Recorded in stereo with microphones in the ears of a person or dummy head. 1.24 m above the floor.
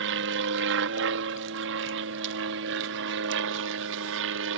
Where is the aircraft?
60° right (ahead or behind); by 4.6 s 65° right (ahead or behind).